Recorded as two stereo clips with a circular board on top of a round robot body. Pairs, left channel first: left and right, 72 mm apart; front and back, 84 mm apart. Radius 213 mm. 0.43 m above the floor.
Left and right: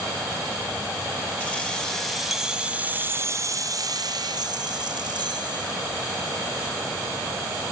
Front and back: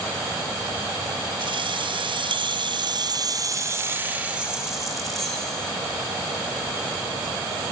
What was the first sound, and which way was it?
Keys jangling, 165° left.